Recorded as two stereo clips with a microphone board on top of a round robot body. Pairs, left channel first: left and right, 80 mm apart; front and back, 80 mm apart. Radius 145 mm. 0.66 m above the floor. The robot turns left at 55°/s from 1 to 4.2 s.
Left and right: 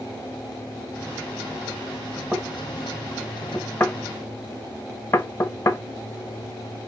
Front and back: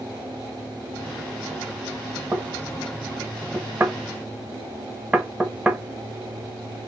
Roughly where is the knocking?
Behind right.